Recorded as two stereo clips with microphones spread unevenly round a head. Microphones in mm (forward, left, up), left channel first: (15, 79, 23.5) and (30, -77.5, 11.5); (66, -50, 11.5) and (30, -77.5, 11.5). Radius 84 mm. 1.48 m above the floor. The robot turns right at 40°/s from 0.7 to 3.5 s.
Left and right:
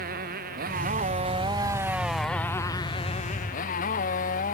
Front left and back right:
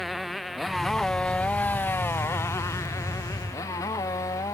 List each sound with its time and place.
0.0 s a motorcycle: 55° right; by 4.5 s 60° left